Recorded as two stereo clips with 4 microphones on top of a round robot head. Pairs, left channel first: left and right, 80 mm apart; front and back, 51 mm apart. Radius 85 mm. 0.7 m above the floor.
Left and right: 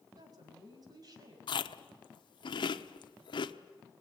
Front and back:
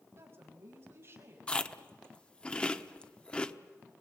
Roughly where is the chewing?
Left.